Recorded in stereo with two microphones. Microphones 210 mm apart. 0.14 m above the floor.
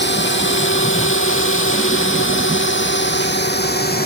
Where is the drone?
60° left (ahead or behind); by 4.1 s 45° left (ahead or behind).